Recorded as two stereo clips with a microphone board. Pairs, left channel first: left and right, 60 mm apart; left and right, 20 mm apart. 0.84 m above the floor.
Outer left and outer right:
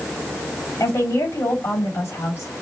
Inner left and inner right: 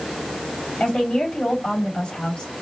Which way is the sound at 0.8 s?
55° left (ahead or behind).